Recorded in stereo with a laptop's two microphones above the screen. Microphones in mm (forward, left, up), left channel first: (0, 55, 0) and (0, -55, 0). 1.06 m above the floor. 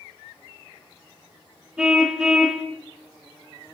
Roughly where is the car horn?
Centre.